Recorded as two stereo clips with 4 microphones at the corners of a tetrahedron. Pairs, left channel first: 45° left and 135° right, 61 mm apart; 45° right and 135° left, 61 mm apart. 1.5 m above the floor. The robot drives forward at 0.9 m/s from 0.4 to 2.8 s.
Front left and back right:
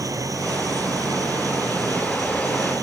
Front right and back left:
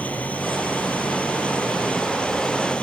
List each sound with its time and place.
0.0 s an engine running: 110° right; by 2.8 s 115° right